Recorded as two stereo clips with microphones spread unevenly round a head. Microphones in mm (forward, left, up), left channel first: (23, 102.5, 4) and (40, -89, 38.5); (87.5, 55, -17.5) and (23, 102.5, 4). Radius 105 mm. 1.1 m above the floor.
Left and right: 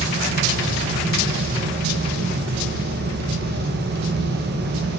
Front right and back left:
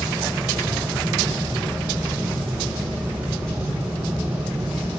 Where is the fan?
125° right, 1.2 m.